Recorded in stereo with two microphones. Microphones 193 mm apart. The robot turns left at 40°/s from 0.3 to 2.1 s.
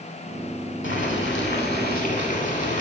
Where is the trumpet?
No trumpet in this recording.